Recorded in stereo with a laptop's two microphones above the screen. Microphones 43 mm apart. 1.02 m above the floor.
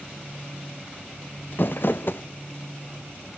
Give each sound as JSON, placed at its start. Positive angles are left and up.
{"t": 1.5, "sound": "crumpling", "side_deg": 55, "distance_m": 0.5}